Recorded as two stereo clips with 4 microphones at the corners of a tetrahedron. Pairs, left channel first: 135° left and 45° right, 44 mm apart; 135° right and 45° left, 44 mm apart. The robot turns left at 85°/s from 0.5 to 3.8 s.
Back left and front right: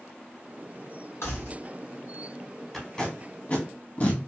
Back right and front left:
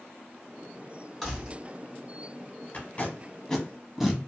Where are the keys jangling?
140° left, 1.7 m; by 1.5 s 115° left, 1.7 m.